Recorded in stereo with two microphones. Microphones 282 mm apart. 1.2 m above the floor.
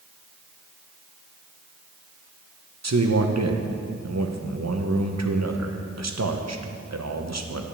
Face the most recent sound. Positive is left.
turn(degrees=-65)  # may be behind; listen again after turning